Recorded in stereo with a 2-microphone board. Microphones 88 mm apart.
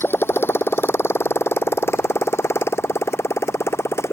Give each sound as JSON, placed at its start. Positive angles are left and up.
{"t": 0.0, "sound": "a motorcycle", "side_deg": 25}